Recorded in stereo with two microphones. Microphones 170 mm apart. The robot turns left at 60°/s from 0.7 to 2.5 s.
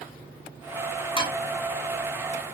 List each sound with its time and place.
1.2 s dishes clattering: 30° left (ahead or behind), 0.7 m; by 1.4 s 35° left (ahead or behind), 0.7 m